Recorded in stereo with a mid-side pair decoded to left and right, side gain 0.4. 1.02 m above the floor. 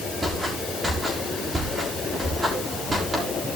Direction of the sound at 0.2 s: 35° right.